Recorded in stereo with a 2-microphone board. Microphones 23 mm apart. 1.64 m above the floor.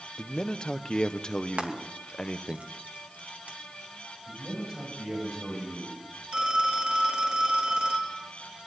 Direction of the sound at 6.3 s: 50° right (ahead or behind).